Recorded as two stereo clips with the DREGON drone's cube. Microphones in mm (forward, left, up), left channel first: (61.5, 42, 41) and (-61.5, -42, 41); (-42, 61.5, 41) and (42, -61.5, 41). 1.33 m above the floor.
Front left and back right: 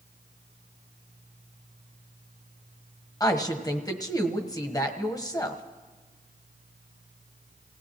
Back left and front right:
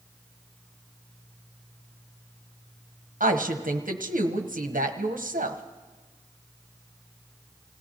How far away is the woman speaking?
About 1.2 m.